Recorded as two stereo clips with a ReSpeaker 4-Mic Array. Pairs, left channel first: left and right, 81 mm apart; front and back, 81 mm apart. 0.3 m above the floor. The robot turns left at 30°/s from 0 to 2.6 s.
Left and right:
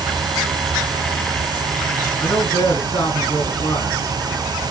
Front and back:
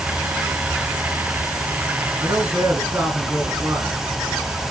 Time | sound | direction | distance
2.2 | a man speaking | 150° left | 2.5 m